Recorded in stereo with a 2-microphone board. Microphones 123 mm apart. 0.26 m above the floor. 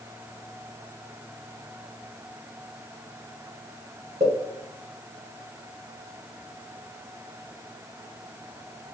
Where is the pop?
65° right (ahead or behind), 2 m.